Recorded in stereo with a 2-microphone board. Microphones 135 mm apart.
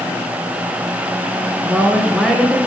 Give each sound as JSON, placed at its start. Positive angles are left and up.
{"t": 1.6, "sound": "a woman speaking", "side_deg": 0, "distance_m": 2.0}